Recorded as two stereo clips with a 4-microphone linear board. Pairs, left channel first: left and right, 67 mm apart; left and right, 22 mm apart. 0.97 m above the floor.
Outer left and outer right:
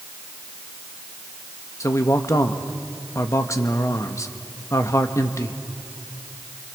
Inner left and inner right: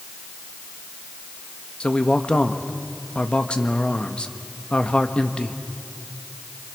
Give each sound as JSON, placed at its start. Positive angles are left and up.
{"t": 1.8, "sound": "a man speaking", "side_deg": 50, "distance_m": 1.3}